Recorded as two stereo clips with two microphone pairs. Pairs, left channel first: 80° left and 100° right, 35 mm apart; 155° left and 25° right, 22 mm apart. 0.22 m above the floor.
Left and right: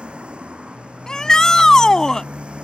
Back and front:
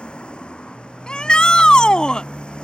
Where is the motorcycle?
160° right.